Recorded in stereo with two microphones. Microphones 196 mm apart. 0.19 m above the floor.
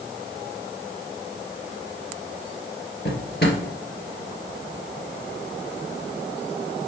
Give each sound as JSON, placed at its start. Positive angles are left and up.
{"t": 3.0, "sound": "a drawer", "side_deg": 55, "distance_m": 2.0}